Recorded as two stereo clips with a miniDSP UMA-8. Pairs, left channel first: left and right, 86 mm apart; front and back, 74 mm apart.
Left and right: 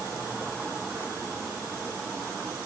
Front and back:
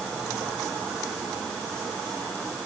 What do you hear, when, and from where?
Only background noise.